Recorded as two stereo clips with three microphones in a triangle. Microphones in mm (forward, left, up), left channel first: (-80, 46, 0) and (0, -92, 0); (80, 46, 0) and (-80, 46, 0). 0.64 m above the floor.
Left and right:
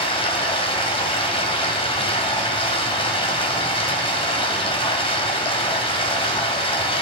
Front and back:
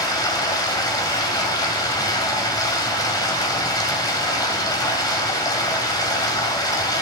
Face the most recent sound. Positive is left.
turn(degrees=65)